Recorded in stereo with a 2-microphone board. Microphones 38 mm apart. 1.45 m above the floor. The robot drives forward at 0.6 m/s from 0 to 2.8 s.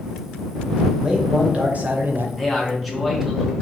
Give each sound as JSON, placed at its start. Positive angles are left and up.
{"t": 1.0, "sound": "a man speaking", "side_deg": -25, "distance_m": 1.1}
{"t": 2.4, "sound": "a man speaking", "side_deg": 5, "distance_m": 0.9}